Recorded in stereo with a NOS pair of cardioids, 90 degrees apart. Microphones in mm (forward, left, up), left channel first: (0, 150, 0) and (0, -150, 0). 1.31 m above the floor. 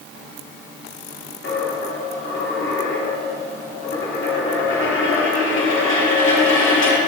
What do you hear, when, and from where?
1.4 s a dropped coin: 45° left, 1.8 m